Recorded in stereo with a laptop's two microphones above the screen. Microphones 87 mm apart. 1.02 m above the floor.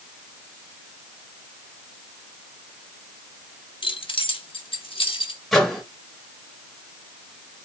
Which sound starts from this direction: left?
Keys jangling, at 3.8 s.